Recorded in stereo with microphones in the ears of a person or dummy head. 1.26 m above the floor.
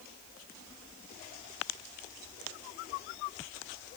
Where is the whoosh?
I don't hear a whoosh.